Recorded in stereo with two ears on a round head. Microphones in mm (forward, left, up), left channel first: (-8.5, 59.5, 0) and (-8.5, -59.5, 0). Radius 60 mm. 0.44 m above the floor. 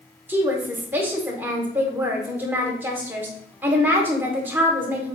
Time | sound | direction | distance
0.3 | a woman speaking | 15° right (ahead or behind) | 0.9 m